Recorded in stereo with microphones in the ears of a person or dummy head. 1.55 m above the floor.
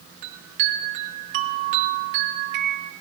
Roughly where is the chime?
Right.